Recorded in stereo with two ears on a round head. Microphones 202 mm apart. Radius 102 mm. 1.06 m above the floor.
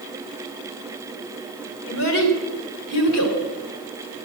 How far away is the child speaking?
About 3.5 m.